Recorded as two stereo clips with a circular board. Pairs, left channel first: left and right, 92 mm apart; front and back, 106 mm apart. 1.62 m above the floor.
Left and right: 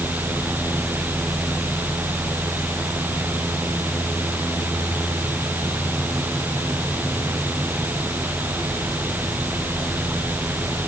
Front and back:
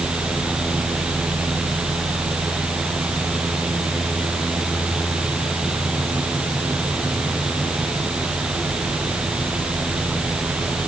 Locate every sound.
Only background noise.